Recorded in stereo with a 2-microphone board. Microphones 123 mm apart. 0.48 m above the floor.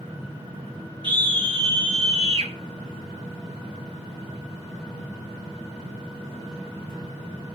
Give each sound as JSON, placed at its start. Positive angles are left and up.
{"t": 1.0, "sound": "a scream", "side_deg": -40, "distance_m": 6.5}